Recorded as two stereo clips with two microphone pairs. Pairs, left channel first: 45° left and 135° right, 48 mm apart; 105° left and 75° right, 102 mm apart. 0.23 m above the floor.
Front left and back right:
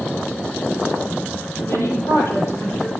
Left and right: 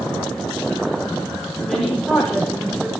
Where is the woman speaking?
20° left, 8 m.